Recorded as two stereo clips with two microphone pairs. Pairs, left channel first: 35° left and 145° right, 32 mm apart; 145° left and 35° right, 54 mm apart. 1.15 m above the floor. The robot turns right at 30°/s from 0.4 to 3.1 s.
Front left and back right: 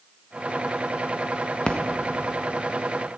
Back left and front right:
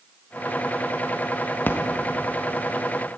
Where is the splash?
95° left, 1.4 m; by 1.8 s 100° left, 1.4 m.